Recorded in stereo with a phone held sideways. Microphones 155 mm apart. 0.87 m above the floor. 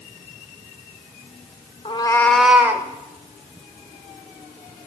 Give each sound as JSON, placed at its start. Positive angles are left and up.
{"t": 1.9, "sound": "a cat meowing", "side_deg": 40, "distance_m": 0.6}